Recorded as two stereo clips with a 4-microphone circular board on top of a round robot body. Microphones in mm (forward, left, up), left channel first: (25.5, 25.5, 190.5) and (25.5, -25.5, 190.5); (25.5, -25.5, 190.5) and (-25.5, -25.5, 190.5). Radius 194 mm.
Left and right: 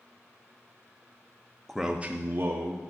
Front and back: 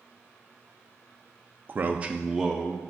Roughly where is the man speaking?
Behind.